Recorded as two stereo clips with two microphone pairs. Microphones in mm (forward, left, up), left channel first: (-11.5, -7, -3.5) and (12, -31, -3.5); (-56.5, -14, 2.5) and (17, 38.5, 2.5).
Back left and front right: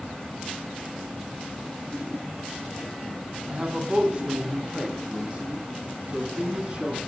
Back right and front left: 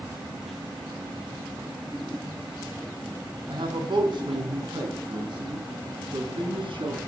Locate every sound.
3.5 s a man speaking: 10° left, 4.5 m; by 7.0 s 15° left, 7 m